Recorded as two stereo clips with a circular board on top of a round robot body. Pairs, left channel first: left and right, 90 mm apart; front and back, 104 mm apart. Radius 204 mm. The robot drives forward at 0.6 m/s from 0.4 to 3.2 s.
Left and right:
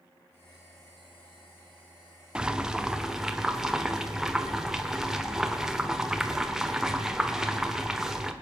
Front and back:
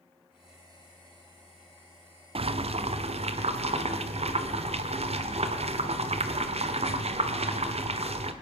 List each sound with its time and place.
2.4 s boiling: 170° right, 0.8 m; by 8.3 s 175° right, 1.2 m